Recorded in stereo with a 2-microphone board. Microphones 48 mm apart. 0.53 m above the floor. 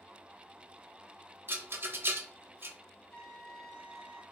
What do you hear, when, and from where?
1.5 s a rattle: 50° right (ahead or behind), 0.8 m
3.1 s a trumpet: 20° left (ahead or behind), 1.2 m